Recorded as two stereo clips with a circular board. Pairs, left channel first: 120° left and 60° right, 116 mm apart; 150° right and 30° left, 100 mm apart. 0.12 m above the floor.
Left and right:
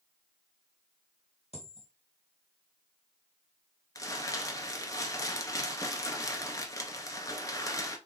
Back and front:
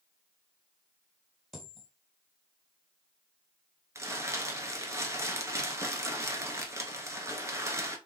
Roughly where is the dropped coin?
Behind left.